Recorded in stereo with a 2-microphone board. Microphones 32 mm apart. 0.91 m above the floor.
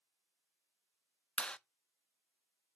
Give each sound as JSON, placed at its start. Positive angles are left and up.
{"t": 1.4, "sound": "a clap", "side_deg": 30, "distance_m": 0.6}